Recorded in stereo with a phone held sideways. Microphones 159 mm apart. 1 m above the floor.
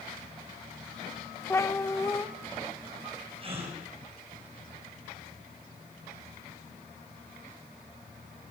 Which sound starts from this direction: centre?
A cat meowing, at 1.5 s.